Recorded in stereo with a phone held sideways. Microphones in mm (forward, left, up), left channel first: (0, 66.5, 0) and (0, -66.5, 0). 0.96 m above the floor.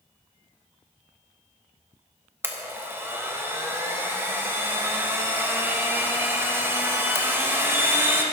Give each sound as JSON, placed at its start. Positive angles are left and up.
{"t": 2.4, "sound": "a blender", "side_deg": -15, "distance_m": 1.1}